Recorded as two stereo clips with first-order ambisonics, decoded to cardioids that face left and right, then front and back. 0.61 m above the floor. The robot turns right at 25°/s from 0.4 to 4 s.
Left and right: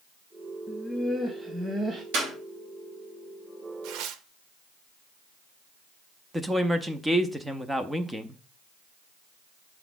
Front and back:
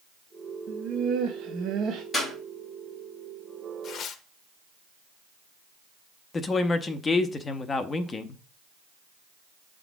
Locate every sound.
0.7 s laughter: 175° left, 0.9 m; by 2.0 s 150° right, 0.9 m
2.1 s a clap: 85° right, 4 m; by 2.3 s 80° right, 4 m
3.8 s tearing paper: 55° right, 0.7 m; by 4.2 s 50° right, 0.7 m
6.3 s a woman speaking: 20° right, 0.6 m